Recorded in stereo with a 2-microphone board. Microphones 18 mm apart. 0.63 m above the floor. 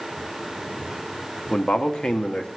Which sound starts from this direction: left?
A man speaking, at 1.5 s.